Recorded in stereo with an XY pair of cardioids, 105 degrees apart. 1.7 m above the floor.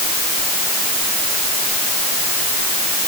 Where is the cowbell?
I don't hear a cowbell.